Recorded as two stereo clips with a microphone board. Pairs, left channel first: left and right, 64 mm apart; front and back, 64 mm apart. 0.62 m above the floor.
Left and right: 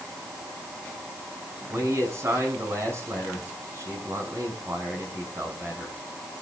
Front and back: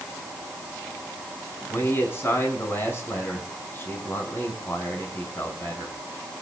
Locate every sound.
1.7 s a man speaking: 50° right, 6 m